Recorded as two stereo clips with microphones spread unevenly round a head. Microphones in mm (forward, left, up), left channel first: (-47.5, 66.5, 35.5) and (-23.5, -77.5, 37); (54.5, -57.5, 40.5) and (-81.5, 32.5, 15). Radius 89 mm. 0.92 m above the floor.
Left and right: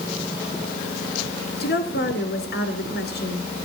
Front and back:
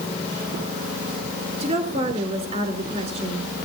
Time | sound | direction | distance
1.6 | a woman speaking | 95° left | 3 m